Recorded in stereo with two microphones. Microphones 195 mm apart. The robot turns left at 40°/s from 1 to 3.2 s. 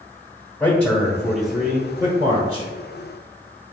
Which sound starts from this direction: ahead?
A man speaking, at 0.6 s.